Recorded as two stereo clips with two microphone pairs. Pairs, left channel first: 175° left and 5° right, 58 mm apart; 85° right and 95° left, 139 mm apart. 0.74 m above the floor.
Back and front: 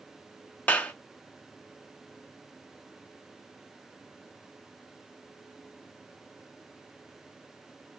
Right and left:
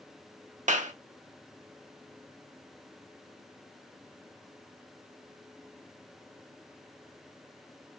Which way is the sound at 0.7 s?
115° left.